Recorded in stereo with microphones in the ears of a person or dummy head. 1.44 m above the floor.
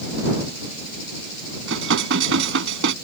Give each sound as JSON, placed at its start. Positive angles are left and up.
{"t": 1.7, "sound": "dishes clattering", "side_deg": -75}